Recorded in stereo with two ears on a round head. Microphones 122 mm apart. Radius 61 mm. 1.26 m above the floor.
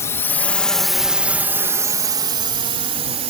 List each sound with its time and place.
0.0 s a drone: 20° left (ahead or behind); by 3.3 s 45° right (ahead or behind)